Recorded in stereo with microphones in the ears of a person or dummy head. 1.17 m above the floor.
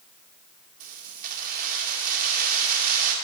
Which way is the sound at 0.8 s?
50° right (ahead or behind).